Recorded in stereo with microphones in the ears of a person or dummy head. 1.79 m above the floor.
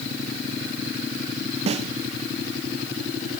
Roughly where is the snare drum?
Right.